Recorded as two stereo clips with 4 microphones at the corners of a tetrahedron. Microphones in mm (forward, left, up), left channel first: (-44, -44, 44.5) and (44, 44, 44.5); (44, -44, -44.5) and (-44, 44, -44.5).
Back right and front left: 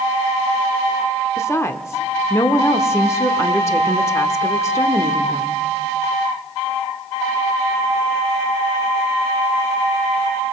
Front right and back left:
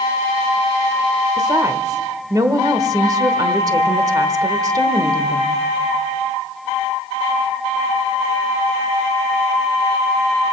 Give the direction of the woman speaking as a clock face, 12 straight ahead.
6 o'clock.